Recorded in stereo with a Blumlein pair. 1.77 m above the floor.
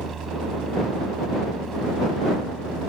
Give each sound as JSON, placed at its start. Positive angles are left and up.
{"t": 0.0, "sound": "a machine running", "azimuth_deg": -20}